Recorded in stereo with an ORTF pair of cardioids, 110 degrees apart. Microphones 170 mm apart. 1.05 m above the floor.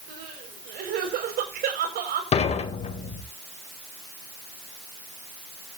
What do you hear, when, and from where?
0.1 s crying: 65° right, 6 m
2.3 s dishes clattering: 40° left, 3 m